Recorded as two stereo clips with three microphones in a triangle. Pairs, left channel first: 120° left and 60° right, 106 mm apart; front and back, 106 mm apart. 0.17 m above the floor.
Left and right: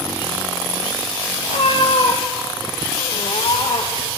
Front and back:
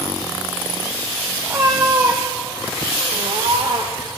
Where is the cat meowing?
115° left, 1.6 m; by 4.1 s 155° left, 2.5 m.